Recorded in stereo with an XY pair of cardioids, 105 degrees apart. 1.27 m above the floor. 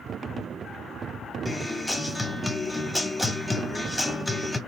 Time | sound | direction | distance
1.4 | a guitar | 5° left | 1.4 m